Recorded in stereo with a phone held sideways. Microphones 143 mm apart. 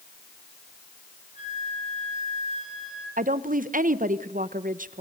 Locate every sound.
1.4 s a flute: 55° left (ahead or behind), 8 m
3.2 s a woman speaking: 70° right (ahead or behind), 0.9 m